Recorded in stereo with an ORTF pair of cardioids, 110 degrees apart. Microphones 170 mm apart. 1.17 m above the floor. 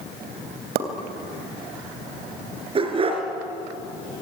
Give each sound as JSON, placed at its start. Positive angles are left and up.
{"t": 0.8, "sound": "a pop", "azimuth_deg": -70, "distance_m": 3.0}
{"t": 2.8, "sound": "a dog barking", "azimuth_deg": -30, "distance_m": 4.5}